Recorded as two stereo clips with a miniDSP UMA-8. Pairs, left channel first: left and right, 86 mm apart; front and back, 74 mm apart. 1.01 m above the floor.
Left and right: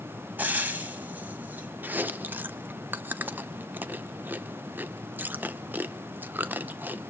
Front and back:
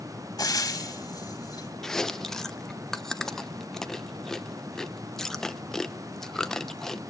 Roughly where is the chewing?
Right.